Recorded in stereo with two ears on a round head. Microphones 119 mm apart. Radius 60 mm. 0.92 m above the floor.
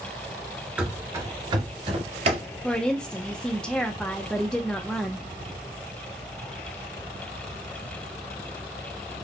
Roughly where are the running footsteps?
Centre.